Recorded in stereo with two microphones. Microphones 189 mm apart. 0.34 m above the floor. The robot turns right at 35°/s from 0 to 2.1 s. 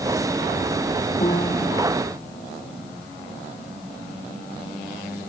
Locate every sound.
1.2 s a piano: 35° left (ahead or behind); by 1.7 s 20° left (ahead or behind)